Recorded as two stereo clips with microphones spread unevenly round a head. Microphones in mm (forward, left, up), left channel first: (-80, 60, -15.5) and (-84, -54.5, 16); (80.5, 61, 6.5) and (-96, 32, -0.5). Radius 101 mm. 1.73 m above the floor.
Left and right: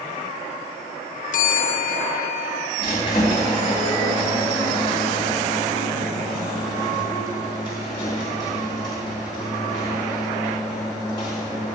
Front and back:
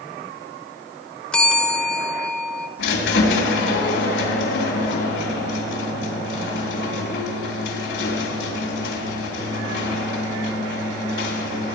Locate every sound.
1.3 s a bell: 95° left, 0.9 m
2.8 s a squeak: 15° left, 3 m